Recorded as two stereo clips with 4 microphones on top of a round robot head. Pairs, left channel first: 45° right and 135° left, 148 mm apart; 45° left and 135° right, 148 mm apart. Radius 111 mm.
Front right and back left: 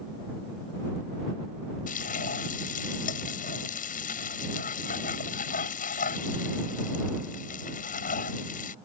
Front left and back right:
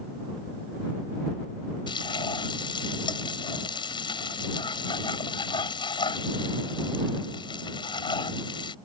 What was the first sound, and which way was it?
Frying, 15° right.